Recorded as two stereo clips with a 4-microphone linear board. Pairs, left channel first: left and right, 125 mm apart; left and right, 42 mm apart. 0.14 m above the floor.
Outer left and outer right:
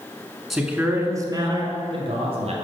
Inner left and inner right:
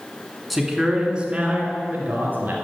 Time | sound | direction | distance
0.5 | a man speaking | centre (ahead or behind) | 1.2 m